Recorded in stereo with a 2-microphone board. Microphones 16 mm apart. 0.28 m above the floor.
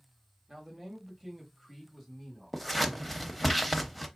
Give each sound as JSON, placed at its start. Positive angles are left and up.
{"t": 0.5, "sound": "a man speaking", "side_deg": -25, "distance_m": 1.2}
{"t": 2.5, "sound": "scissors", "side_deg": 5, "distance_m": 0.6}